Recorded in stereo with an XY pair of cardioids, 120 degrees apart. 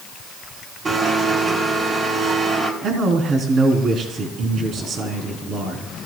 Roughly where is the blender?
Ahead right.